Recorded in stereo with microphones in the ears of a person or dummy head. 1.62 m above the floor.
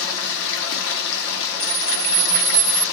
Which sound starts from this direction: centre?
A camera shutter, at 1.6 s.